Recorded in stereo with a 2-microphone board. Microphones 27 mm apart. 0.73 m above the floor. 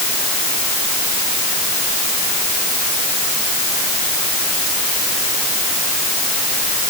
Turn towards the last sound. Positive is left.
No sound to turn to.